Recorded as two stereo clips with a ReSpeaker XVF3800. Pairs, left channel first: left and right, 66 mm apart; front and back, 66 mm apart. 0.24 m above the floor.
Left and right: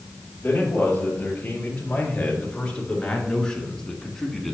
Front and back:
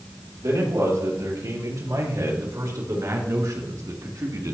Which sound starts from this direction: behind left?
A man speaking, at 0.4 s.